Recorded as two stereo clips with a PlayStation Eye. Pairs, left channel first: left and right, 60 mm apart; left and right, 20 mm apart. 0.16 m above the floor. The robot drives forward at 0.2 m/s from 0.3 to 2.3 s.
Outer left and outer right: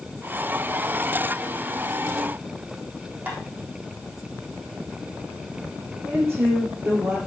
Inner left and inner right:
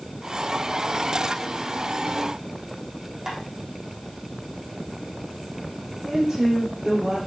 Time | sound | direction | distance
3.3 | tapping | 30° right (ahead or behind) | 3.5 m
6.0 | a woman speaking | 45° right (ahead or behind) | 4 m